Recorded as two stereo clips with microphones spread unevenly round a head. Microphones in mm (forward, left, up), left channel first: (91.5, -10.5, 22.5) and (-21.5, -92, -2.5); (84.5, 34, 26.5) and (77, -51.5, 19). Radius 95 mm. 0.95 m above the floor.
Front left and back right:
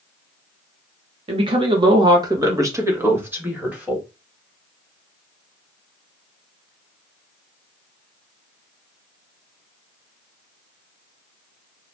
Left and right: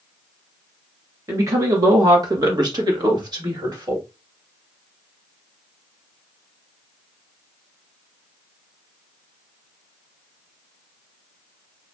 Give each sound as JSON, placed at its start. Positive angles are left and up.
{"t": 1.3, "sound": "a woman speaking", "azimuth_deg": -135, "distance_m": 1.1}